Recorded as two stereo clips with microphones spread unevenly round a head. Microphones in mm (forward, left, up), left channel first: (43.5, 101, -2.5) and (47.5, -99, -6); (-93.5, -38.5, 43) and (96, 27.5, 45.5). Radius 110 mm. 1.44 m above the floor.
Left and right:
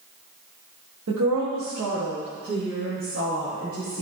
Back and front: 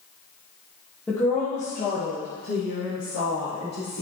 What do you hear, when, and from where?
1.1 s a woman speaking: 80° right, 1.3 m; by 4.0 s 150° right, 4.5 m